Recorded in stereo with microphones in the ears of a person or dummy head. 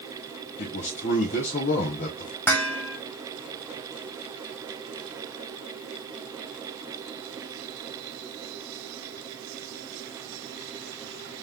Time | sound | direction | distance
0.6 | a man speaking | 40° left (ahead or behind) | 1.2 m
2.5 | dishes clattering | 10° left (ahead or behind) | 1.7 m